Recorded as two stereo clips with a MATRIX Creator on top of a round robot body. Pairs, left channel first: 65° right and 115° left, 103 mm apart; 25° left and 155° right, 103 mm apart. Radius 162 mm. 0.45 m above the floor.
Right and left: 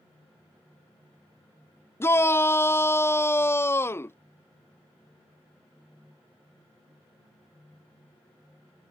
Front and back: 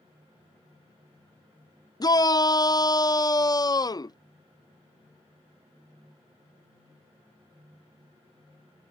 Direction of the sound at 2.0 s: 10° right.